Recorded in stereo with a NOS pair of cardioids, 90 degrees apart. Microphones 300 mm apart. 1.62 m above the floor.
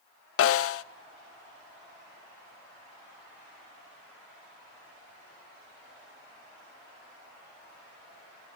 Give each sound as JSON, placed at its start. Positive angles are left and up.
{"t": 0.4, "sound": "a snare drum", "azimuth_deg": 50, "distance_m": 0.6}